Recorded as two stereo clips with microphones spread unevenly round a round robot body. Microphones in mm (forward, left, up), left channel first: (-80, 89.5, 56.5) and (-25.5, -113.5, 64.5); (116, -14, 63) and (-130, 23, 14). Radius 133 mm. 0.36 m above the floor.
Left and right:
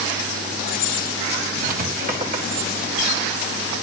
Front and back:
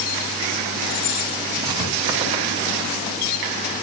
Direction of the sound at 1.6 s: 120° right.